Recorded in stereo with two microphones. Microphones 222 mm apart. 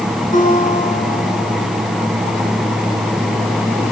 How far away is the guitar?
About 9.5 m.